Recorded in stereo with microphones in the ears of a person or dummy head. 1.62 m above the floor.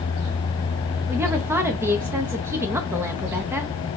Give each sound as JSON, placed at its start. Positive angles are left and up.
{"t": 1.1, "sound": "a woman speaking", "side_deg": -15, "distance_m": 0.5}